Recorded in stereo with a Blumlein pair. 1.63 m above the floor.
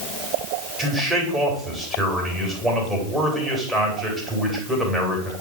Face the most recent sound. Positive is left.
turn(degrees=-10)